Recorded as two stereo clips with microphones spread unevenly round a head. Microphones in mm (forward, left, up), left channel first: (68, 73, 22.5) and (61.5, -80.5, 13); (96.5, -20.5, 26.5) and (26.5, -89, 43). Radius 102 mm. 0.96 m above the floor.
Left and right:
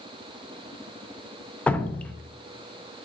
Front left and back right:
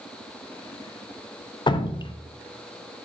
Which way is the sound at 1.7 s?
5° left.